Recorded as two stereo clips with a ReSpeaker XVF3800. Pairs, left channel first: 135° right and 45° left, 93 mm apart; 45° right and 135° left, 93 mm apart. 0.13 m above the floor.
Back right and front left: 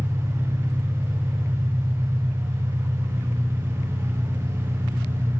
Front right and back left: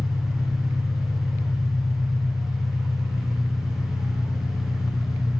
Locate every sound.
0.0 s an engine running: 15° right, 0.8 m